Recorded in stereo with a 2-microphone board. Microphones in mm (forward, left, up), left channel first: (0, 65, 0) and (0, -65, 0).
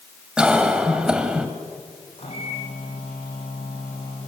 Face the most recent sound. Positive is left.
turn(degrees=50)  # may be behind; listen again after turning